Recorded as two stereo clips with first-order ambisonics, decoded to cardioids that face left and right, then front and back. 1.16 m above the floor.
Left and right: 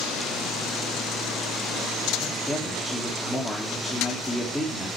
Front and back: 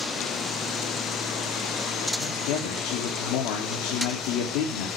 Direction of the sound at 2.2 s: 5° left.